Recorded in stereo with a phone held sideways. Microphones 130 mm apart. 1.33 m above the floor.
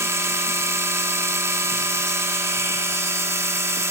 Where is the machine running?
20° right (ahead or behind), 2.5 m.